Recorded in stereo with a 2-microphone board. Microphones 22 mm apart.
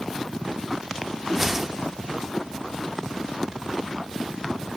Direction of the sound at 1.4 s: 10° right (ahead or behind).